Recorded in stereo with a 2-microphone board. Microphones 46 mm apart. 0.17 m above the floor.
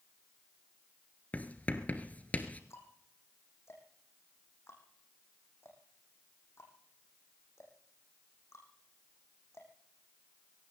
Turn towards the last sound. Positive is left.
turn(degrees=80)